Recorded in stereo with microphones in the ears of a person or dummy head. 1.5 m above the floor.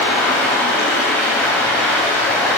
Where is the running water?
10° left (ahead or behind), 1.5 m.